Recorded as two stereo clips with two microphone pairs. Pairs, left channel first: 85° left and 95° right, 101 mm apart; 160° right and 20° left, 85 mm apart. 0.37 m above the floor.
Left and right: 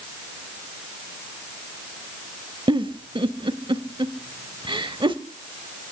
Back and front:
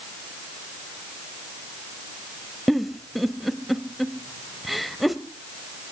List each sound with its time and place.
2.7 s a giggle: 70° right, 0.9 m